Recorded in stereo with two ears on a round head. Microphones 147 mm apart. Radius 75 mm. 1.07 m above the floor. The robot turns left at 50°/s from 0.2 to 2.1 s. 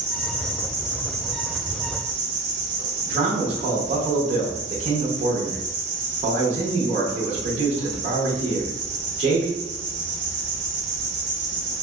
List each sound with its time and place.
0.0 s an insect: 50° left, 1.1 m; by 11.8 s 45° right, 1.1 m
3.1 s a man speaking: 40° right (ahead or behind), 0.8 m